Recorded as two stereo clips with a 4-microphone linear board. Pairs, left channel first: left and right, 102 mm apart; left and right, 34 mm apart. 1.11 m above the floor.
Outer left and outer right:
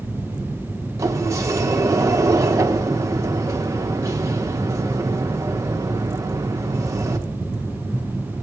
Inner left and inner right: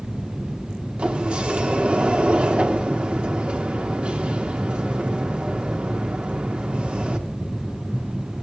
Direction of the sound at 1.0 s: 30° right (ahead or behind).